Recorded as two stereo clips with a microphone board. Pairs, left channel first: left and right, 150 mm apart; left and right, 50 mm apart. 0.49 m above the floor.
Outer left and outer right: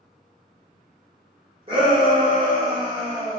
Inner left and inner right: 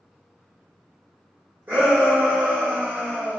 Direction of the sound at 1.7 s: 35° right (ahead or behind).